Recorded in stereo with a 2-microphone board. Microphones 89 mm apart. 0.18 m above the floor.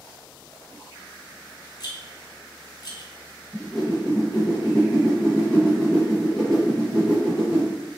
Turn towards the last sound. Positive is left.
turn(degrees=5)  # may be behind; listen again after turning